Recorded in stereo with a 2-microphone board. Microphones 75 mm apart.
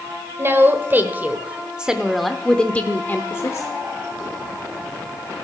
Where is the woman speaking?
35° right (ahead or behind), 1.4 m; by 3.7 s 40° left (ahead or behind), 0.9 m.